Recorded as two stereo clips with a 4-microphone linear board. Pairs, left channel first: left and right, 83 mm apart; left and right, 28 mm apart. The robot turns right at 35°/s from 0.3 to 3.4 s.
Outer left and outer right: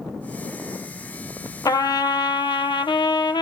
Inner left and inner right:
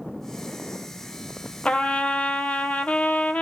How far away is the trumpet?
About 0.5 m.